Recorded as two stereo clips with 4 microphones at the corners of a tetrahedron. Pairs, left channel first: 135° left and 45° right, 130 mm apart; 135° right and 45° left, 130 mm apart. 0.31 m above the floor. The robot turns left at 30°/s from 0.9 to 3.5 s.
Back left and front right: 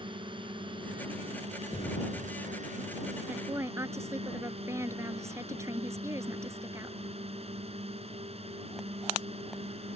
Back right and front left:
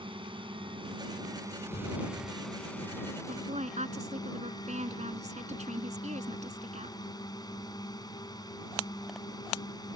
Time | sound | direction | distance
0.0 | a drone | straight ahead | ?
1.7 | an explosion | 170° right | ?
3.3 | a woman speaking | 30° left | ?